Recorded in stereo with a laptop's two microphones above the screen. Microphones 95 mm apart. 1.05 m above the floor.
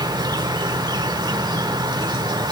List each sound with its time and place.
0.0 s an insect: 50° right (ahead or behind), 1.3 m